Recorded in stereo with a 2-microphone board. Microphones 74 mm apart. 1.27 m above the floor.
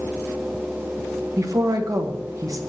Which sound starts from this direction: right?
A woman speaking, at 1.4 s.